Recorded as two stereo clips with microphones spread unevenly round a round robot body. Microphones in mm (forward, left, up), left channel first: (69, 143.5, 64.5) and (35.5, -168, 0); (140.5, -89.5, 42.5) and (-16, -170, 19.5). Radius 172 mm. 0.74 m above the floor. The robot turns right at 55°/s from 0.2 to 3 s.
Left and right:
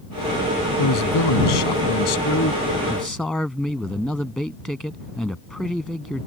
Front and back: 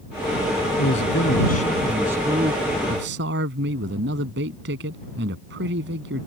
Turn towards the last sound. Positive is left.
turn(degrees=170)